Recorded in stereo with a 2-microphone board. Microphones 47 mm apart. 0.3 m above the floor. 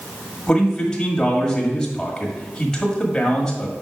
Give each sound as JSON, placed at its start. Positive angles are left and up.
{"t": 0.5, "sound": "a man speaking", "side_deg": 15, "distance_m": 1.4}